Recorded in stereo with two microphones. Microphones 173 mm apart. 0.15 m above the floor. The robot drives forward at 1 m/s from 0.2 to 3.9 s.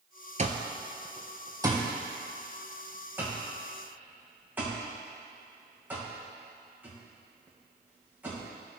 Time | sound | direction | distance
0.4 | an alarm clock | 45° right (ahead or behind) | 1.0 m